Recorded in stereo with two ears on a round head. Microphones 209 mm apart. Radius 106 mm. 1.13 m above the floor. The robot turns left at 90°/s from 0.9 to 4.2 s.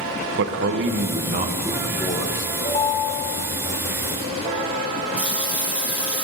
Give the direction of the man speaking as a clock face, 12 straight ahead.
3 o'clock.